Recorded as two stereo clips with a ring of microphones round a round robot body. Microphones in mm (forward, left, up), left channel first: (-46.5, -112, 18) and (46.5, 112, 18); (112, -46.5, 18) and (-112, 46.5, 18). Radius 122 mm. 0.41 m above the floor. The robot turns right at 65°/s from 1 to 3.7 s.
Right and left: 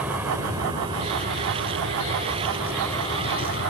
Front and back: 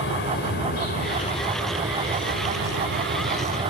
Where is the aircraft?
15° right; by 3.7 s 130° right.